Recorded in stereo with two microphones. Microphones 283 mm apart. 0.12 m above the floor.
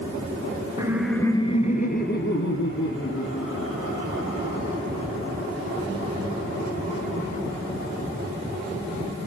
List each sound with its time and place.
0.8 s laughter: 15° right (ahead or behind), 1.2 m; by 4.8 s 55° left (ahead or behind), 5 m